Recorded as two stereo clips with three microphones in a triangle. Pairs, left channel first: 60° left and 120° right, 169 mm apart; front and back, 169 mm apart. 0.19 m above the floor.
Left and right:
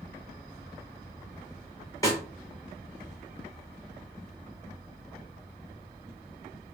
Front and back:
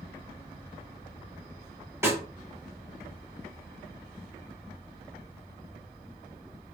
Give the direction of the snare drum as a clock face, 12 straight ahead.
8 o'clock.